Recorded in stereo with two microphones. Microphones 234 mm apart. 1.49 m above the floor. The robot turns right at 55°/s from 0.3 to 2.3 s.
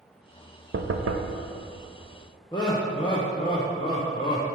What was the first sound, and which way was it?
Knocking, 125° right.